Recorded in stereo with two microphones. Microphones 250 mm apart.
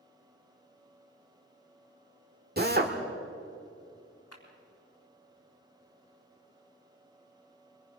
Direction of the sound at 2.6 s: 40° right (ahead or behind).